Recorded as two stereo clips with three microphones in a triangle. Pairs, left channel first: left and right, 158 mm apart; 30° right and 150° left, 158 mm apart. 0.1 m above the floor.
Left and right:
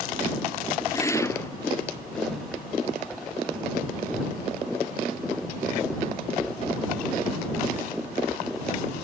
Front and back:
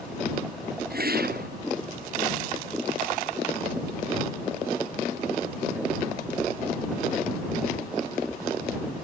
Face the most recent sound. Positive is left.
turn(degrees=160)